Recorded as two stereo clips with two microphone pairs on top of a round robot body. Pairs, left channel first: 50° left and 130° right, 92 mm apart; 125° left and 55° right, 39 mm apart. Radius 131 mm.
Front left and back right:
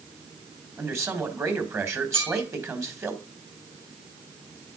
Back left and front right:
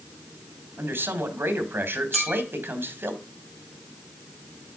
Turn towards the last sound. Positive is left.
turn(degrees=-145)